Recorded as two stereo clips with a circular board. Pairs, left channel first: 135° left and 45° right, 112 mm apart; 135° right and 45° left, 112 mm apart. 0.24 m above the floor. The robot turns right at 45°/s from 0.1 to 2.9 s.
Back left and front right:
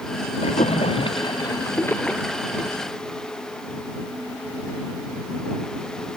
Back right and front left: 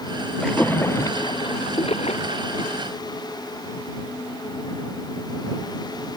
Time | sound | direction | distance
0.4 | a splash | 140° left | ?